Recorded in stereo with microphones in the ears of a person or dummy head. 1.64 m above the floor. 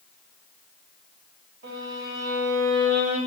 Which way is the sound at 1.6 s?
75° right (ahead or behind).